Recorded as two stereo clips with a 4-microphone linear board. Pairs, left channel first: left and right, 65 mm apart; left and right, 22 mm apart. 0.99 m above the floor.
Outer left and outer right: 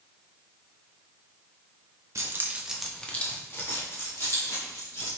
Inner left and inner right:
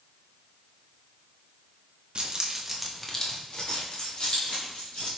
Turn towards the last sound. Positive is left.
turn(degrees=60)  # may be behind; listen again after turning